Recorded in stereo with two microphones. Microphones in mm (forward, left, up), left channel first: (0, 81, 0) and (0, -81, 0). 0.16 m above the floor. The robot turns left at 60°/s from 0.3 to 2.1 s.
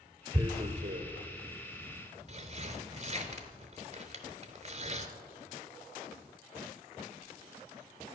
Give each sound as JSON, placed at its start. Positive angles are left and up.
{"t": 0.3, "sound": "tearing paper", "side_deg": -20, "distance_m": 0.7}